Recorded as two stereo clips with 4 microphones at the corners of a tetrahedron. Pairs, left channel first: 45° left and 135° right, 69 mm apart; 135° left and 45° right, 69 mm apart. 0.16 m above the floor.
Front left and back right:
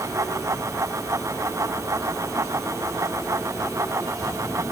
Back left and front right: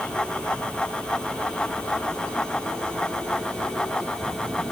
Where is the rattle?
No rattle in this recording.